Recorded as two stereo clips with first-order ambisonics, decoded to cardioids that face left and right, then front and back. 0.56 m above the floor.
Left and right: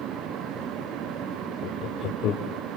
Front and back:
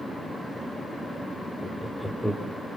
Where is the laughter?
90° left, 1.2 m.